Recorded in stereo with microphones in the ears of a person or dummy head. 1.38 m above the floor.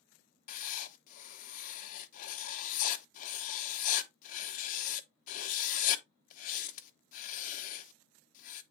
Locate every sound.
0.5 s writing: 45° left (ahead or behind), 0.9 m